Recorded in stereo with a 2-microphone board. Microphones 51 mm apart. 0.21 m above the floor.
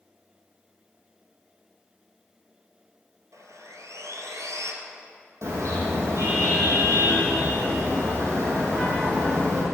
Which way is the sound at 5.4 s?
70° right (ahead or behind).